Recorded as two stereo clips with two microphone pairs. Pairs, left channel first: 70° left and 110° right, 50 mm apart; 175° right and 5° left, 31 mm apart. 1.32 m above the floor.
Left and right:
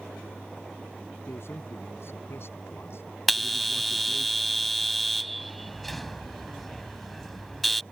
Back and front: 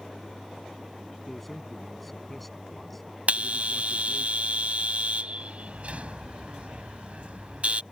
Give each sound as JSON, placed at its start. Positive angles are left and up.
{"t": 1.3, "sound": "a man speaking", "azimuth_deg": 100}
{"t": 3.3, "sound": "a bell", "azimuth_deg": -20}